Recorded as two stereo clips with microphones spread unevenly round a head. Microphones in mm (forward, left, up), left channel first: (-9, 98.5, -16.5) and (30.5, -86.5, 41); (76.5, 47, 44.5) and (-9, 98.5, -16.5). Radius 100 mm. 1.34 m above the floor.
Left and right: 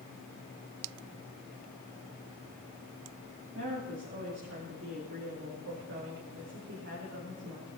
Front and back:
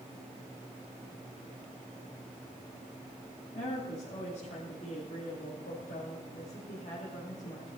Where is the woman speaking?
55° right, 3 m.